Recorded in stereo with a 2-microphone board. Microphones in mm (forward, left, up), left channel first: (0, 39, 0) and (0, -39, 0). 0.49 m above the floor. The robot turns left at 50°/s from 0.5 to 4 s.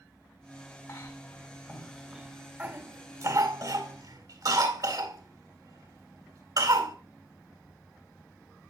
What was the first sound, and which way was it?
A cough, 40° left (ahead or behind).